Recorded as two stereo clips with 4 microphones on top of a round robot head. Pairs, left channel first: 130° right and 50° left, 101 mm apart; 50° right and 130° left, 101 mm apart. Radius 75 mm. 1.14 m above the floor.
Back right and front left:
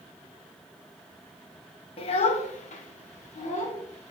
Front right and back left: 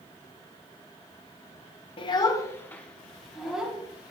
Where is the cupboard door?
I don't hear a cupboard door.